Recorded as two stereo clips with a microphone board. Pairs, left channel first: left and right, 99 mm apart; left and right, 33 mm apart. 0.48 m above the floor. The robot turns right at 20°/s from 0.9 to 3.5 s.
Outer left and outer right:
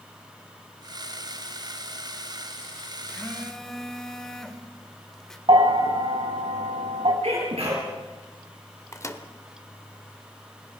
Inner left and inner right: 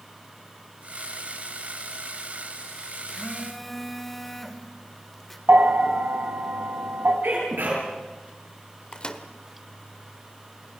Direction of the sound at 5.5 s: 60° right (ahead or behind).